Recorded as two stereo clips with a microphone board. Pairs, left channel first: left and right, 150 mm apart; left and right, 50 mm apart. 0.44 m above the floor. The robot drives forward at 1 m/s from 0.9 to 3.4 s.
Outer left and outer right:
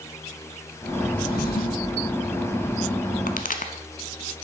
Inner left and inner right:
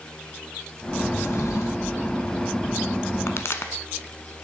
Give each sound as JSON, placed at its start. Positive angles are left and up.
{"t": 1.2, "sound": "a drawer", "side_deg": 75, "distance_m": 1.0}
{"t": 3.3, "sound": "a pop", "side_deg": 70, "distance_m": 0.7}